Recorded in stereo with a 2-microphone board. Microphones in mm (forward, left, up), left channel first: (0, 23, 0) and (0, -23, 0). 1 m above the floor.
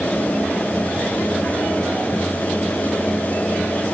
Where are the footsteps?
No footsteps in this recording.